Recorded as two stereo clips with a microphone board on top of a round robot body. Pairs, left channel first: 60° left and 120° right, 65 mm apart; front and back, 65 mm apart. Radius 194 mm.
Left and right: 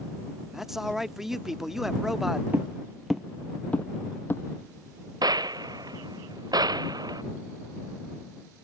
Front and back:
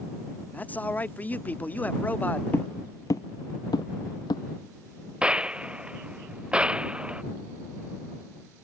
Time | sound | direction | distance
0.5 | a man speaking | 35° right | ?
2.5 | footsteps | 55° right | ?
5.2 | a gunshot | 105° right | ?